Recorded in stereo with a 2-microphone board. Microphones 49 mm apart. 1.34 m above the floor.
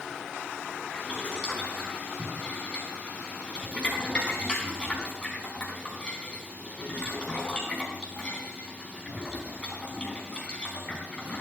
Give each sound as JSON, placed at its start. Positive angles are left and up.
{"t": 0.9, "sound": "boiling", "side_deg": 20, "distance_m": 4.5}